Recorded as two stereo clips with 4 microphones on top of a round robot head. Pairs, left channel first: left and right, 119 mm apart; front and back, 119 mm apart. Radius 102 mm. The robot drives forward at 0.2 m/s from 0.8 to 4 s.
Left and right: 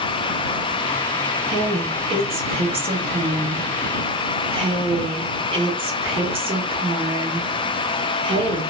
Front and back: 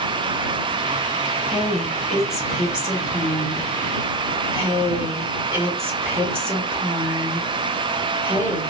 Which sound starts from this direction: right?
A woman speaking, at 1.5 s.